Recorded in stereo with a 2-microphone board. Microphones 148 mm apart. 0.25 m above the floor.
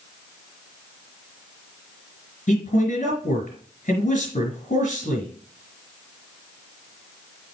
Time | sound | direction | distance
2.5 | a man speaking | 55° left (ahead or behind) | 3.5 m